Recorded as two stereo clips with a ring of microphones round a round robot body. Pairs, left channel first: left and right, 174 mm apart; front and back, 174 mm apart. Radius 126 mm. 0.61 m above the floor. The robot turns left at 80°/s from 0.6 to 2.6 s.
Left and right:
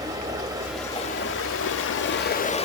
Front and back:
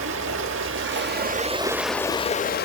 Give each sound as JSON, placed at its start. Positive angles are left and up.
{"t": 0.0, "sound": "running water", "azimuth_deg": -165, "distance_m": 0.7}